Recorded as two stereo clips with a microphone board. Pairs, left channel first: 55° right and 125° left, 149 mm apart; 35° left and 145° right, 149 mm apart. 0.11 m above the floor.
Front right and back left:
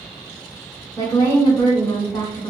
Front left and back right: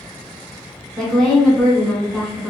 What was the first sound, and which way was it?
A woman speaking, 45° right.